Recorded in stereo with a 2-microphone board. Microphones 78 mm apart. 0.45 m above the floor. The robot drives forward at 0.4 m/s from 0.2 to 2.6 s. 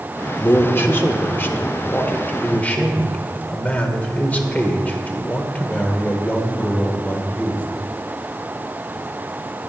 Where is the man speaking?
30° left (ahead or behind), 0.8 m; by 7.6 s 20° left (ahead or behind), 1.1 m.